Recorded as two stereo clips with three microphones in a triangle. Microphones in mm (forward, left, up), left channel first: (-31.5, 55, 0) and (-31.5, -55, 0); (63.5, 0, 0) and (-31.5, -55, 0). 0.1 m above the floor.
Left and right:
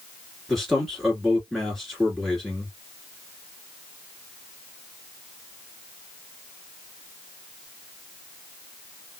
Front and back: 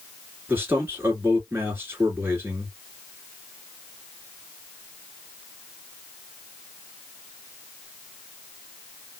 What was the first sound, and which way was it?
A man speaking, 175° left.